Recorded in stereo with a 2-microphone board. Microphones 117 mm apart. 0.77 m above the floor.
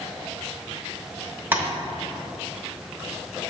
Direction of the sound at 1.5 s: 15° right (ahead or behind).